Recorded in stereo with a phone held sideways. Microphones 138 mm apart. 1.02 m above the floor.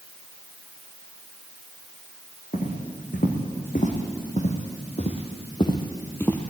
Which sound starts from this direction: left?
Footsteps, at 2.5 s.